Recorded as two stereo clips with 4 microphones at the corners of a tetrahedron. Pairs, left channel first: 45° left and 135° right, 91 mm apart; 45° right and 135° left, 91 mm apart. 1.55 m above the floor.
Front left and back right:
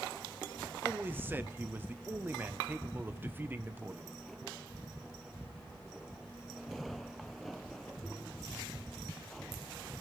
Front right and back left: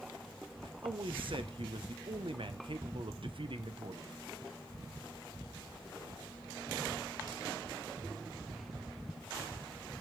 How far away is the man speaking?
About 1.1 m.